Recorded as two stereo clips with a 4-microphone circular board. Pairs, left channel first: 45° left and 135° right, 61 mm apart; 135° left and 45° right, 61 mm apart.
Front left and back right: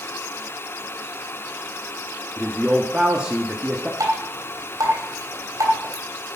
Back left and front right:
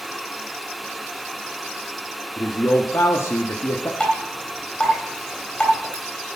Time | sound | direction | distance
2.4 | a man speaking | 155° left | 1.4 m
4.0 | dripping | 150° right | 3 m